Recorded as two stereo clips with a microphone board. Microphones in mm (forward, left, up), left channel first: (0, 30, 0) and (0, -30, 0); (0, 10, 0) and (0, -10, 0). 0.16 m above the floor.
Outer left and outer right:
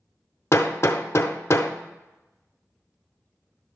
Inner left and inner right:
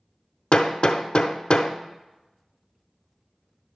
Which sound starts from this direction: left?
Hammering, at 0.5 s.